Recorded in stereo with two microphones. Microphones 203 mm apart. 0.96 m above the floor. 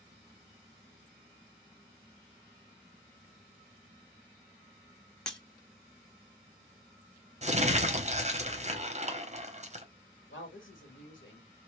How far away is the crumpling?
About 0.8 m.